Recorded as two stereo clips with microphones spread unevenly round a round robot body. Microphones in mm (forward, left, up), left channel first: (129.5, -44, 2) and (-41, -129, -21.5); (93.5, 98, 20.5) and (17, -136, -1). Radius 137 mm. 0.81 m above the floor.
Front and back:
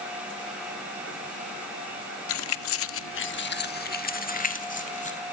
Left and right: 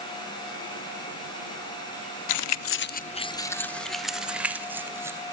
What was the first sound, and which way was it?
Keys jangling, 65° left.